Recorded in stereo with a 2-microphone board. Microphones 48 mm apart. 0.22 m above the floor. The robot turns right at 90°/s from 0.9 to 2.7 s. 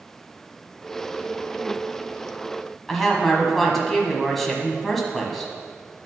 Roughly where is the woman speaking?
Centre.